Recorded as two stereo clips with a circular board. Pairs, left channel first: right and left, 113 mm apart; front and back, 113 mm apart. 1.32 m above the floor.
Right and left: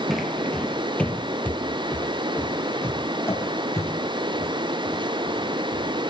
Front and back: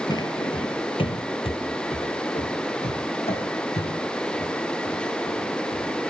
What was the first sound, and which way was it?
Footsteps, 5° left.